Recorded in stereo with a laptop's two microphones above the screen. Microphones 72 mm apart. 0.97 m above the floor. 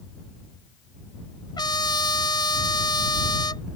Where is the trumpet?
85° left.